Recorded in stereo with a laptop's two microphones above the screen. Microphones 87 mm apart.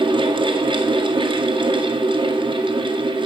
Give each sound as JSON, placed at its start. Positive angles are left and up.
{"t": 0.0, "sound": "a fan", "side_deg": -70, "distance_m": 1.9}